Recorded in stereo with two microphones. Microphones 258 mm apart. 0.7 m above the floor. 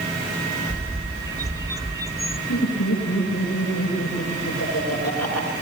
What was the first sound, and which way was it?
A bird, 15° right (ahead or behind).